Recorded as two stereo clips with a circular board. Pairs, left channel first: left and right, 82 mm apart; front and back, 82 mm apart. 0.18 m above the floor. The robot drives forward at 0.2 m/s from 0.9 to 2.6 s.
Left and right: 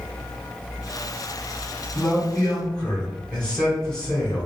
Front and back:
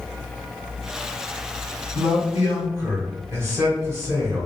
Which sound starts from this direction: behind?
A man speaking, at 1.9 s.